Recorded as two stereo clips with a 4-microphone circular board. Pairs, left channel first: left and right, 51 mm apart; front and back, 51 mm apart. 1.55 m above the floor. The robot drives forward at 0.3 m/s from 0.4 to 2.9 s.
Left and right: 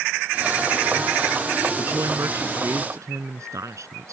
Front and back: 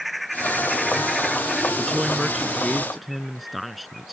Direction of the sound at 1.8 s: 90° right.